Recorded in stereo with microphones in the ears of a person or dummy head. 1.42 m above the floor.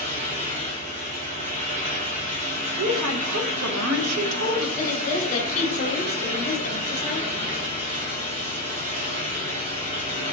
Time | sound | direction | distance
0.0 | a fan | 45° right (ahead or behind) | 1.4 m
2.8 | a woman speaking | 85° right | 0.7 m
4.8 | a woman speaking | 45° left (ahead or behind) | 1.1 m